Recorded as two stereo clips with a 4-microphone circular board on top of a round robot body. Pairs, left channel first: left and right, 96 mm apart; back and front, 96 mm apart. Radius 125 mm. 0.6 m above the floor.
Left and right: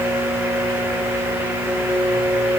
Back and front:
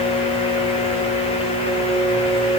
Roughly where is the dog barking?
No dog barking in this recording.